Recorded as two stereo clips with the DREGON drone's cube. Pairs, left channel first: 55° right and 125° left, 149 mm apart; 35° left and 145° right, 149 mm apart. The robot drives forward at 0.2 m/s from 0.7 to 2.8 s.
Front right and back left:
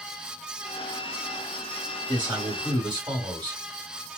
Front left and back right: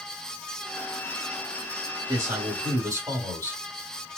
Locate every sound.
2.1 s a man speaking: 160° left, 1.4 m; by 3.6 s 165° left, 1.5 m